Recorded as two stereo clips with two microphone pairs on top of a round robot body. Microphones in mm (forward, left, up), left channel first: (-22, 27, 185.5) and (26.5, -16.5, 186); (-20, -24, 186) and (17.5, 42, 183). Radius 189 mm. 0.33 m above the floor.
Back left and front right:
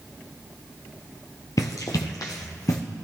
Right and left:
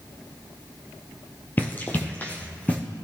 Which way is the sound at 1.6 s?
175° left.